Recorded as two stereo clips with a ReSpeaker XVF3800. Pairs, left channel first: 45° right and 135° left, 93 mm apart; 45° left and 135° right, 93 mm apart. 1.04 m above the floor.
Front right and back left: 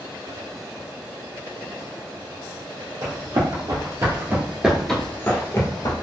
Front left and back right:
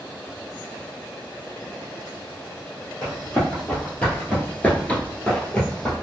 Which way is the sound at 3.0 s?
120° left.